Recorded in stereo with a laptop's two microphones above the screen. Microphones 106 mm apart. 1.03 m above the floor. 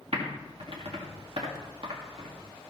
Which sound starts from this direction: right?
Typing on a keyboard, at 0.1 s.